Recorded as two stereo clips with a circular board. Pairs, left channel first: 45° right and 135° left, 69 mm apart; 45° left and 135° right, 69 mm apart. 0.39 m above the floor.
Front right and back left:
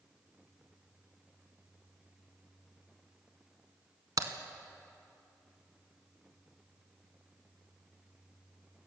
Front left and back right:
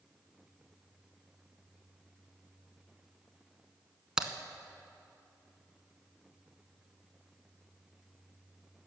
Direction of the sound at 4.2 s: 145° left.